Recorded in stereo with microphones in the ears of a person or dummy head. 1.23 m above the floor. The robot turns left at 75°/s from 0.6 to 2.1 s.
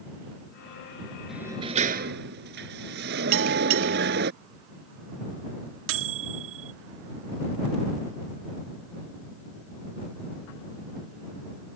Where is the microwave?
70° right (ahead or behind).